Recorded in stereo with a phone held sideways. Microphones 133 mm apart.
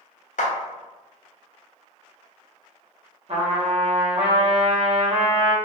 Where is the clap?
70° left (ahead or behind), 0.6 m.